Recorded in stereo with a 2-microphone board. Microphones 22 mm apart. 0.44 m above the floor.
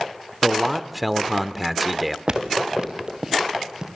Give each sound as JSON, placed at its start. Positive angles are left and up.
{"t": 0.4, "sound": "a man speaking", "side_deg": -5, "distance_m": 0.9}
{"t": 2.3, "sound": "footsteps", "side_deg": -45, "distance_m": 2.5}